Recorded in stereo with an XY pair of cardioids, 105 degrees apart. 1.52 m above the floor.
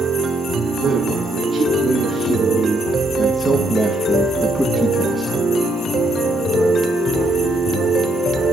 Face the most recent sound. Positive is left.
turn(degrees=25)